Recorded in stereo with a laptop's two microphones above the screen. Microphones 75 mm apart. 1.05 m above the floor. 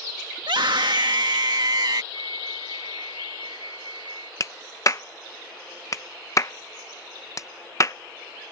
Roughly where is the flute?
Left.